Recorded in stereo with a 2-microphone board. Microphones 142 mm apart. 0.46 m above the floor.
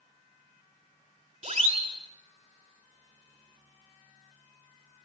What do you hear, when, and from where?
1.4 s a siren: 45° right (ahead or behind), 2.5 m